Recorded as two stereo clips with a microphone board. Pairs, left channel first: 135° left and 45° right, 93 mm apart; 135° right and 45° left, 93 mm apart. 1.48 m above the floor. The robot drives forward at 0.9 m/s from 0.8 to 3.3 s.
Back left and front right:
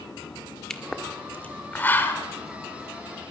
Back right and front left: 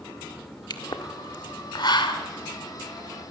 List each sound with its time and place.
0.7 s a pop: 145° right, 1.6 m; by 2.2 s 160° right, 2.5 m